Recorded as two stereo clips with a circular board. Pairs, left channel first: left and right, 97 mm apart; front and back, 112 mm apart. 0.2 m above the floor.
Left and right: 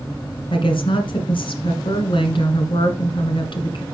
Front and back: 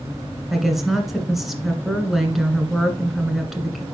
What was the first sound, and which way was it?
A woman speaking, 90° left.